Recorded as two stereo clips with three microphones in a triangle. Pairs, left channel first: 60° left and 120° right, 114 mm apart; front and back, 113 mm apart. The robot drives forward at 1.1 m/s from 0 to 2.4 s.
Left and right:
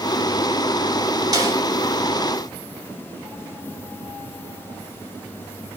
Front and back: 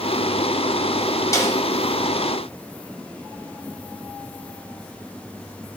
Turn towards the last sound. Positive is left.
turn(degrees=-75)